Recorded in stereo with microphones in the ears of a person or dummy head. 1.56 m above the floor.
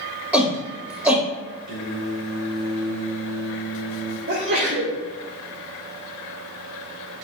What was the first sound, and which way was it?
A shout, 5° right (ahead or behind).